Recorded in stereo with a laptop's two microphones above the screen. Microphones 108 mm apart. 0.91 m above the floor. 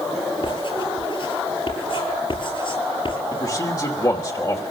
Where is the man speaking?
35° left (ahead or behind), 2.5 m.